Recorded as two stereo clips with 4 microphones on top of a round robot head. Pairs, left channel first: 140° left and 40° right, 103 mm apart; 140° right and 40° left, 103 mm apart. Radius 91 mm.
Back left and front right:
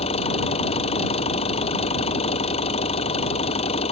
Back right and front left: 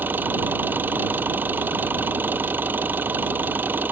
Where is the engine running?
110° left.